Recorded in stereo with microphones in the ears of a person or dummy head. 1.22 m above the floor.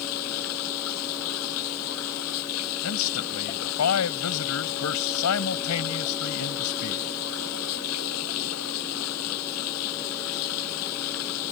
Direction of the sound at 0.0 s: 80° left.